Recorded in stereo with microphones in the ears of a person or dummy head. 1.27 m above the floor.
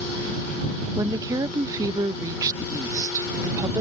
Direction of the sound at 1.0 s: 20° right (ahead or behind).